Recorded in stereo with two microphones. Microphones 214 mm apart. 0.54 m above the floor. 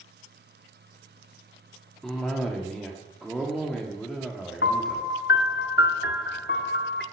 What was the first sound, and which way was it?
A cough, centre (ahead or behind).